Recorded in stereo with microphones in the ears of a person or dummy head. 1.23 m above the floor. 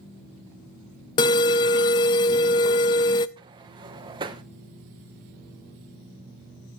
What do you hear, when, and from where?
1.2 s an alarm: 25° left (ahead or behind), 0.5 m
3.4 s a sliding door: 20° right (ahead or behind), 0.9 m